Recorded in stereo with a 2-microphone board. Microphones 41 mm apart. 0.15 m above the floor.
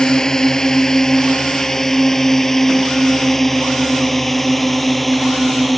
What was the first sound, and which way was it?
A drone, 15° left (ahead or behind).